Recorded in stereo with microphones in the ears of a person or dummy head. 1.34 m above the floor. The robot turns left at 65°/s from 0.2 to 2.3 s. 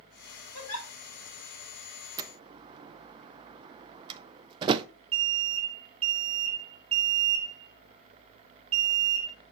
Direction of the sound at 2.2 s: 20° right (ahead or behind).